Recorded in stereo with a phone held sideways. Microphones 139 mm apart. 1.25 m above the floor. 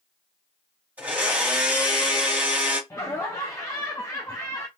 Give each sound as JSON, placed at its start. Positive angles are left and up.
{"t": 1.0, "sound": "a blender", "side_deg": -10, "distance_m": 1.8}
{"t": 2.9, "sound": "laughter", "side_deg": 20, "distance_m": 0.5}